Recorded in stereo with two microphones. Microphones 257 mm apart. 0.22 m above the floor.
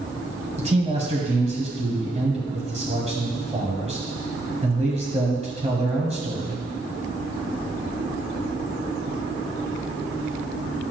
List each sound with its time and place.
0.6 s a man speaking: 25° right (ahead or behind), 1.7 m